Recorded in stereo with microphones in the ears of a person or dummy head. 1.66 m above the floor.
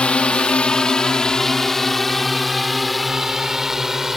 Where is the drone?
5° left (ahead or behind); by 4.2 s centre (ahead or behind).